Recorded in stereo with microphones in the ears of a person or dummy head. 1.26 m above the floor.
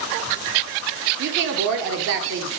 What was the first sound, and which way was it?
A woman speaking, 55° right (ahead or behind).